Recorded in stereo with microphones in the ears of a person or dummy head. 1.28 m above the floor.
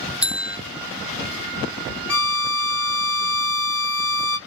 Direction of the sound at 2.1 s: 15° left (ahead or behind).